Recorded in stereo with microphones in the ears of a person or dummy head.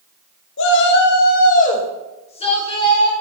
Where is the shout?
65° left (ahead or behind), 1.7 m; by 3.1 s 20° left (ahead or behind), 3.5 m.